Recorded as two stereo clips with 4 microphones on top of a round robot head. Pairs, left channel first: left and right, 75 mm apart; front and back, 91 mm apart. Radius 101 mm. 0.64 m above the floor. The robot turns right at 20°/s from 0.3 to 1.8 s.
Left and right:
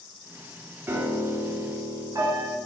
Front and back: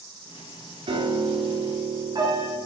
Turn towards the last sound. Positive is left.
turn(degrees=-135)